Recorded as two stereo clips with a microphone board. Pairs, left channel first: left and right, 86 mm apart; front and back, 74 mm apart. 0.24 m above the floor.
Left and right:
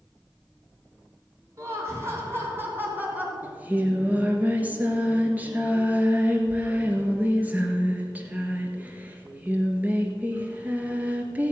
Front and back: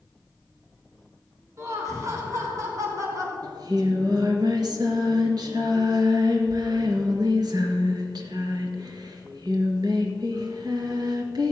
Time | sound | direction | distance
1.6 | laughter | 140° right | 3 m
3.4 | singing | 160° right | 1.6 m